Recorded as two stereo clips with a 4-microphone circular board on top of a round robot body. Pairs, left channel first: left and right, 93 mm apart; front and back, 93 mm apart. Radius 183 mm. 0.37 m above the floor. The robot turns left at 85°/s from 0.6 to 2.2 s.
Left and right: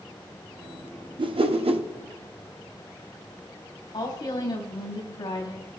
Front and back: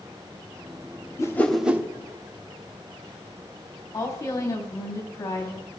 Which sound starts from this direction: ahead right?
A whoosh, at 1.2 s.